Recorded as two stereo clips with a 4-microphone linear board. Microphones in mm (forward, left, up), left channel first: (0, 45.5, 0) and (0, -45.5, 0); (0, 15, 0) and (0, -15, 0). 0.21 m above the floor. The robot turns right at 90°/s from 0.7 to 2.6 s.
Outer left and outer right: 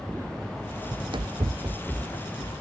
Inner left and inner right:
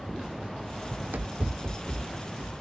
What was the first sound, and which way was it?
Running footsteps, 30° right (ahead or behind).